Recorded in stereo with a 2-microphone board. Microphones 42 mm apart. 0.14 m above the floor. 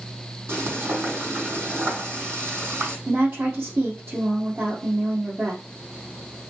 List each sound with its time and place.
0.5 s frying: 75° right (ahead or behind), 5 m
3.1 s a woman speaking: 65° right (ahead or behind), 3 m